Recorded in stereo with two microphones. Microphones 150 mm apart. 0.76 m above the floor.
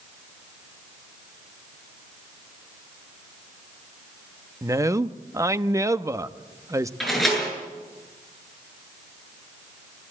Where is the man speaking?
20° right (ahead or behind), 0.8 m.